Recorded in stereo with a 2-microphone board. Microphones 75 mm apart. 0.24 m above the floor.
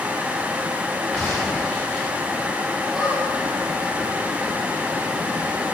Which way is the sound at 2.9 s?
10° right (ahead or behind).